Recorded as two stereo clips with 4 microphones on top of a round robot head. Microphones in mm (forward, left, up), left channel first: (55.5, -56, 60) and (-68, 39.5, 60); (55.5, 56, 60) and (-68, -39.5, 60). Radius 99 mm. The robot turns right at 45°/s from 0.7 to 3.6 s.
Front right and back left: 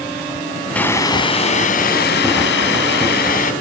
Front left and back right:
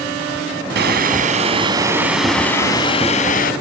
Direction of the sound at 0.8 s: 120° right.